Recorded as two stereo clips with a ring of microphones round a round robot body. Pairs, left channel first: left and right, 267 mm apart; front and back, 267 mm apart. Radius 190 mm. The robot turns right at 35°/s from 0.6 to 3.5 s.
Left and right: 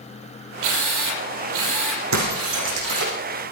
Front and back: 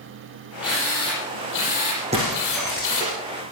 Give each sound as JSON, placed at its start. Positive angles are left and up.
{"t": 0.6, "sound": "a drill", "azimuth_deg": -95, "distance_m": 6.0}
{"t": 2.1, "sound": "breaking glass", "azimuth_deg": -105, "distance_m": 7.5}